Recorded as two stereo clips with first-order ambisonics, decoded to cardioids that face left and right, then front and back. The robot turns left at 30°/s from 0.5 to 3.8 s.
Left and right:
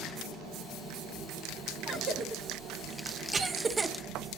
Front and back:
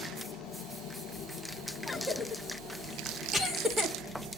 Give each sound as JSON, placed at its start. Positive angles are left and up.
{"t": 0.0, "sound": "an engine running", "azimuth_deg": -45, "distance_m": 9.0}
{"t": 1.9, "sound": "a cough", "azimuth_deg": -75, "distance_m": 1.0}